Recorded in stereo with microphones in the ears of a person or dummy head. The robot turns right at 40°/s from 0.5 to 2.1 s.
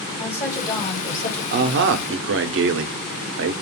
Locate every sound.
0.2 s a woman speaking: 15° left, 1.4 m; by 1.4 s 50° left, 1.4 m
1.5 s a man speaking: 50° right (ahead or behind), 0.5 m; by 3.5 s 60° right (ahead or behind), 0.5 m